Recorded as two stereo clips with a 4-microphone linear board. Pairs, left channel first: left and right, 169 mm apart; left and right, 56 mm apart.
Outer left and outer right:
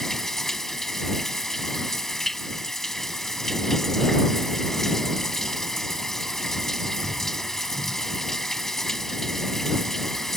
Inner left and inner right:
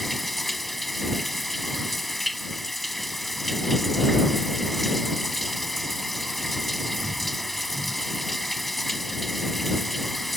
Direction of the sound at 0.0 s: Centre (ahead or behind).